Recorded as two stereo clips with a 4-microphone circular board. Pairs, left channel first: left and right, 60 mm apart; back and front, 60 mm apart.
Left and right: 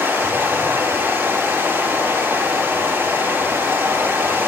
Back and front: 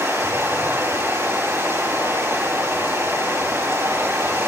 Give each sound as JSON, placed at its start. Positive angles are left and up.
{"t": 0.0, "sound": "running water", "azimuth_deg": -35, "distance_m": 4.5}